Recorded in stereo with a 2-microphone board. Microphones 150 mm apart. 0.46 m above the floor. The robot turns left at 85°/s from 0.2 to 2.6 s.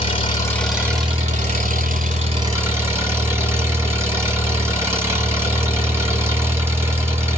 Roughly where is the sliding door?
I don't hear a sliding door.